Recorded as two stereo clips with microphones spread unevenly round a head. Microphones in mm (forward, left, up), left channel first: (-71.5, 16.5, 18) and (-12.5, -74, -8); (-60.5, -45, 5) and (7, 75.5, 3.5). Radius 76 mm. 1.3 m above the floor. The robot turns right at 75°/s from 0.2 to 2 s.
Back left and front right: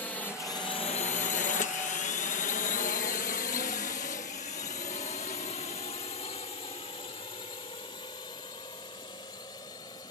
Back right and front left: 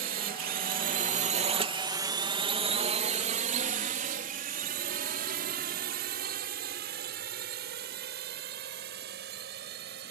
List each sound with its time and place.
0.0 s a drone: 40° left; by 10.1 s 55° left